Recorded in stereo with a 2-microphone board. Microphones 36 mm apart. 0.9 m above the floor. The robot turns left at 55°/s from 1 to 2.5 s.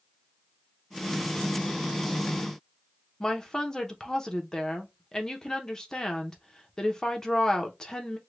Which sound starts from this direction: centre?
A woman speaking, at 3.2 s.